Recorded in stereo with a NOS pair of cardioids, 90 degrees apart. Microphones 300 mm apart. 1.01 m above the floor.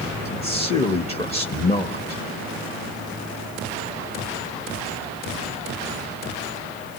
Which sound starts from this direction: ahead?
A man speaking, at 0.2 s.